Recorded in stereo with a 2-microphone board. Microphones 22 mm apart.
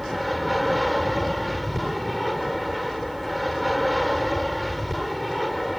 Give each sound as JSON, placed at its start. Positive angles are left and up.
{"t": 0.0, "sound": "an aircraft", "side_deg": 5}